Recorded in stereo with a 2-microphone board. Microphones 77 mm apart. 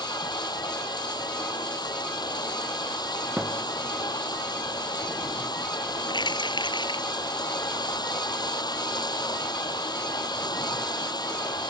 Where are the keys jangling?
80° left.